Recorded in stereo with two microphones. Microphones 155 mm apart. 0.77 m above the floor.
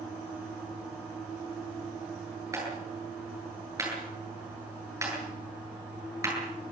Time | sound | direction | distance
2.5 | a clap | 20° right (ahead or behind) | 9.5 m